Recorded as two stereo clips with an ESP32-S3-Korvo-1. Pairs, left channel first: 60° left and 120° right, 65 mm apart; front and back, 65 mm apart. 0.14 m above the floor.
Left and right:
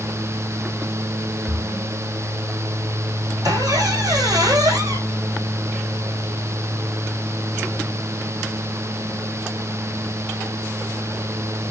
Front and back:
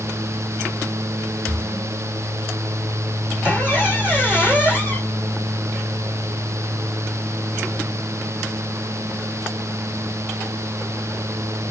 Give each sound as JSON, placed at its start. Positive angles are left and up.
{"t": 1.5, "sound": "a splash", "azimuth_deg": -125, "distance_m": 1.6}
{"t": 3.4, "sound": "a squeak", "azimuth_deg": -110, "distance_m": 3.0}